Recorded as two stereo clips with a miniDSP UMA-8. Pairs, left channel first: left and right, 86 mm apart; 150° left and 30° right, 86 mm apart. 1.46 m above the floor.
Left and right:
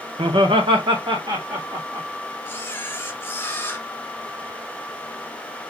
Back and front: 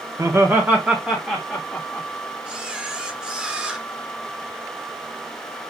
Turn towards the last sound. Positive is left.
turn(degrees=45)